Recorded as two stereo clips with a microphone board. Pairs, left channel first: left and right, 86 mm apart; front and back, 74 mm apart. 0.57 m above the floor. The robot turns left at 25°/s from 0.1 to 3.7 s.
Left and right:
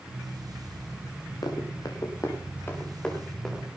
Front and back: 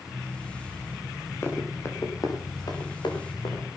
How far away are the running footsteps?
About 4.5 m.